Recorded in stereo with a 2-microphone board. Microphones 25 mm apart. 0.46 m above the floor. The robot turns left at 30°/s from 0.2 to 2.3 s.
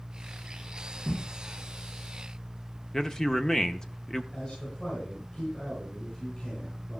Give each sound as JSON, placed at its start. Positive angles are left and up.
{"t": 1.1, "sound": "a whoosh", "side_deg": 80, "distance_m": 5.0}
{"t": 2.9, "sound": "a man speaking", "side_deg": 25, "distance_m": 0.8}
{"t": 4.3, "sound": "a man speaking", "side_deg": 50, "distance_m": 5.5}